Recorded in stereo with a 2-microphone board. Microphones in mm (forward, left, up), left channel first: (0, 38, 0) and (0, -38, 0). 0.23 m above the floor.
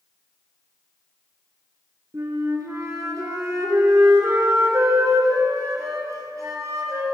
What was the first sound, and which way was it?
A flute, 50° right (ahead or behind).